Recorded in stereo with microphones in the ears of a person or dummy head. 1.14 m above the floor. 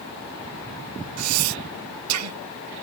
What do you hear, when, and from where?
1.2 s breathing: 80° right